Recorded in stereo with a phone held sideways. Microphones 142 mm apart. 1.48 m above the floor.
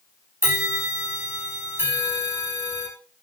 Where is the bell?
15° right (ahead or behind), 6 m.